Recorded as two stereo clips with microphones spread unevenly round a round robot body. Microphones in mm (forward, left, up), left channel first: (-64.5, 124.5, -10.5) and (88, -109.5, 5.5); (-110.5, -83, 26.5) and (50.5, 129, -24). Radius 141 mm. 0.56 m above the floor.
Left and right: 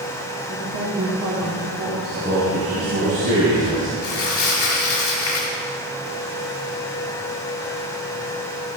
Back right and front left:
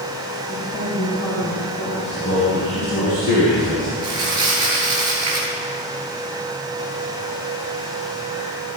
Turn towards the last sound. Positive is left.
turn(degrees=80)